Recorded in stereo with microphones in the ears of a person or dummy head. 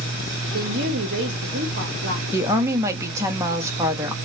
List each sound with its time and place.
0.5 s a woman speaking: 60° right (ahead or behind), 0.7 m
2.3 s a woman speaking: 15° right (ahead or behind), 0.7 m